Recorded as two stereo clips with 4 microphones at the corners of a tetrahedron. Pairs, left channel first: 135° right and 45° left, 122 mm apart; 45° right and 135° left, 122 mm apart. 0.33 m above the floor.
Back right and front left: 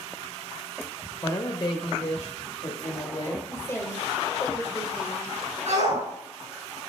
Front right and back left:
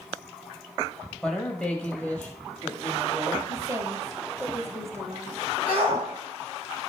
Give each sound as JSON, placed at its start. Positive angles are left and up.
{"t": 1.2, "sound": "a woman speaking", "azimuth_deg": -125, "distance_m": 0.9}
{"t": 3.5, "sound": "a woman speaking", "azimuth_deg": 175, "distance_m": 1.5}
{"t": 5.7, "sound": "a shout", "azimuth_deg": 60, "distance_m": 5.5}